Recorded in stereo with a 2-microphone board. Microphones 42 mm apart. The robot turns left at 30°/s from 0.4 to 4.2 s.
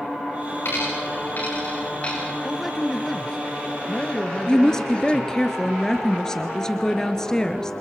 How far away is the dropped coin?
About 8.5 m.